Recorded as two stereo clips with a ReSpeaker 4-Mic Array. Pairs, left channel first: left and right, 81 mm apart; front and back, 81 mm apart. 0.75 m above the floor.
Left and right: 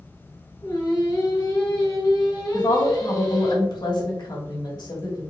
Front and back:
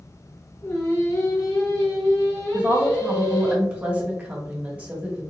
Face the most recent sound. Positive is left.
turn(degrees=110)